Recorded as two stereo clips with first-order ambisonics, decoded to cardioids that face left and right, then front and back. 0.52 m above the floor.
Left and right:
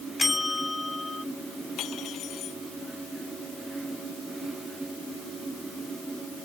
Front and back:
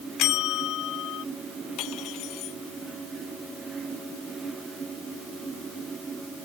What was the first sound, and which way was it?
A bell, 10° left.